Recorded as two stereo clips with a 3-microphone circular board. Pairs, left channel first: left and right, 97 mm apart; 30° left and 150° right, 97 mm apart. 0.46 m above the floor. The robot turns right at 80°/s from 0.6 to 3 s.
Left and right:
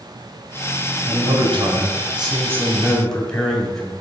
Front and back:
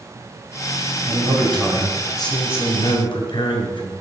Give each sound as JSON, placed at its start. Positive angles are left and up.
{"t": 1.1, "sound": "a man speaking", "azimuth_deg": -145, "distance_m": 2.5}